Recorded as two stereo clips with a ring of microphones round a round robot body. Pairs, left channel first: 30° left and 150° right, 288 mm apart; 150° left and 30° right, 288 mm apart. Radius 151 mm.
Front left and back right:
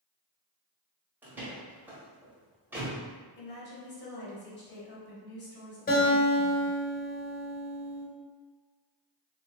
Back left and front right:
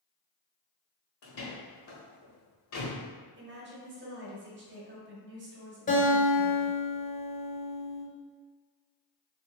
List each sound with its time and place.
1.2 s a door slam: 125° left, 1.1 m
3.4 s a woman speaking: straight ahead, 1.2 m
5.9 s a guitar: 90° left, 1.0 m